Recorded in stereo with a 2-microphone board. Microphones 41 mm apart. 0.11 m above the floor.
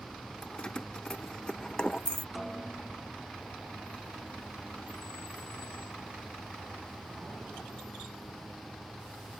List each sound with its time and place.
0.4 s keys jangling: 20° left (ahead or behind)
2.4 s a snare drum: centre (ahead or behind)